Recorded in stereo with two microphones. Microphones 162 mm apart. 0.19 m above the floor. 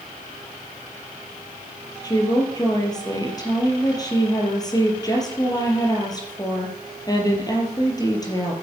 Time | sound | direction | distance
2.0 | a woman speaking | 25° left (ahead or behind) | 4 m